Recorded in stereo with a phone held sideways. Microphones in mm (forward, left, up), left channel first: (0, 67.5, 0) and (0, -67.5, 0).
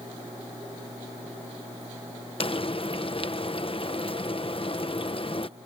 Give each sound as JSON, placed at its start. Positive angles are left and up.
{"t": 2.4, "sound": "frying", "side_deg": 40}